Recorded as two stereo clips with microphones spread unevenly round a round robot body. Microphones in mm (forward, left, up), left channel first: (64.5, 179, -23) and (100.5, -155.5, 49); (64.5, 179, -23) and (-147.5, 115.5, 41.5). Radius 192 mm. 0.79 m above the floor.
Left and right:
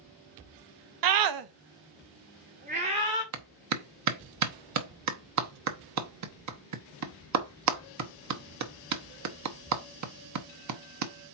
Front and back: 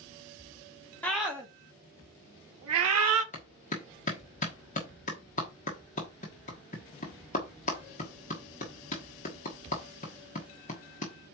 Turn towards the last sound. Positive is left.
turn(degrees=-40)